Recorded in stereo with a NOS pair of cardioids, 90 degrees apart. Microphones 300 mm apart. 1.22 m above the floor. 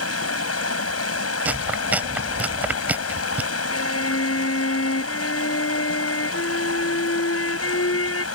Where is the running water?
50° left.